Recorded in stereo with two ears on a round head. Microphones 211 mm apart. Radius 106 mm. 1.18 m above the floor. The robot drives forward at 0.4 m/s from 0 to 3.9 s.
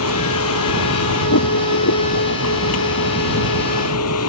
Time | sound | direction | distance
0.0 | a vehicle | 65° left (ahead or behind) | ?